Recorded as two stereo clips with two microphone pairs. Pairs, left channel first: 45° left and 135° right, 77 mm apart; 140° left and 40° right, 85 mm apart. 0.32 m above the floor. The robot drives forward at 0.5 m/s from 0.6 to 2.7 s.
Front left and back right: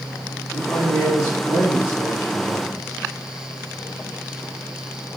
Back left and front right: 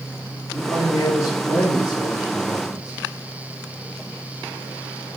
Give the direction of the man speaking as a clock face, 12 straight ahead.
9 o'clock.